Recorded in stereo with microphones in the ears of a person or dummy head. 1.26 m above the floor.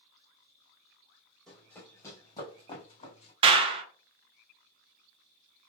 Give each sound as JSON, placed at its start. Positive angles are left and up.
{"t": 1.5, "sound": "running footsteps", "side_deg": 5, "distance_m": 1.9}
{"t": 3.4, "sound": "a clap", "side_deg": -30, "distance_m": 0.8}